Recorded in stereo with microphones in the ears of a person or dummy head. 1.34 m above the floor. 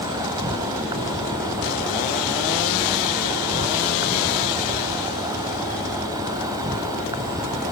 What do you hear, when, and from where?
0.0 s an insect: 15° right (ahead or behind)